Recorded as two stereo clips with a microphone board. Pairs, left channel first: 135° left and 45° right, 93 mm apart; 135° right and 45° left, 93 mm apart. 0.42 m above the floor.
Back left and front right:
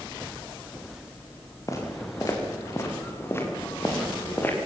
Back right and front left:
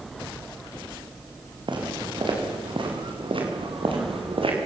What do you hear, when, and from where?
1.7 s footsteps: 80° left, 7.5 m; by 4.6 s 65° left, 7 m